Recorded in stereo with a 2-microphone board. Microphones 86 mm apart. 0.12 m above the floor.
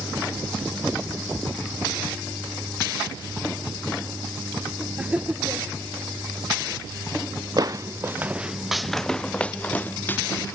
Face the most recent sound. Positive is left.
turn(degrees=25)  # may be behind; listen again after turning